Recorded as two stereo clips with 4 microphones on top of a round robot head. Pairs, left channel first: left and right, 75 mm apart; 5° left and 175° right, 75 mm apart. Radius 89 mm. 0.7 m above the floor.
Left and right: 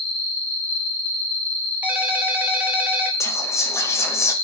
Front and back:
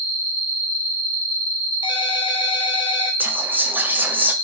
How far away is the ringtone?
About 0.6 m.